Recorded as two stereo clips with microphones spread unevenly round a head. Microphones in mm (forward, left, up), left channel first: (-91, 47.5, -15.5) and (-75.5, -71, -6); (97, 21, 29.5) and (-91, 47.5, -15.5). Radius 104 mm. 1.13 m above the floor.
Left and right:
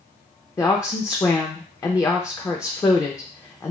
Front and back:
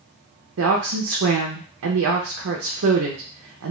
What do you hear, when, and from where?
0.6 s a woman speaking: 165° left, 0.5 m